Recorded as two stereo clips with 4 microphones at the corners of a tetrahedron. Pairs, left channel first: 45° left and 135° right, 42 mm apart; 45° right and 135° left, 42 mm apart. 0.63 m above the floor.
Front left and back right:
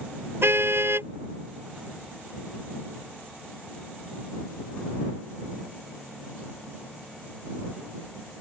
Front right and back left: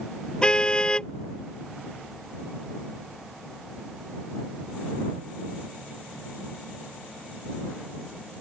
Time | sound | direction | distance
0.4 | a car horn | 115° right | ?